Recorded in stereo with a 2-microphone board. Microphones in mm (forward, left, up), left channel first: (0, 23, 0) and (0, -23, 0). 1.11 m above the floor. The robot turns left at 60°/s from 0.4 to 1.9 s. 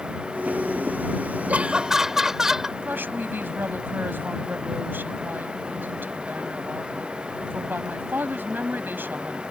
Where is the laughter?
35° right (ahead or behind); by 2.7 s 10° right (ahead or behind).